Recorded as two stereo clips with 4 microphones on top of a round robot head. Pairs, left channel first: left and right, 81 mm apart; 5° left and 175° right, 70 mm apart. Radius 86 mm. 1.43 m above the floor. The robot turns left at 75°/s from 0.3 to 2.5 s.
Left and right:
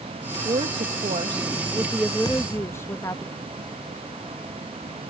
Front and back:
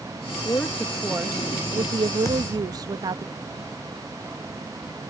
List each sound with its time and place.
0.5 s a woman speaking: 55° right; by 3.2 s 155° left
2.2 s a thud: 50° left; by 3.0 s 30° left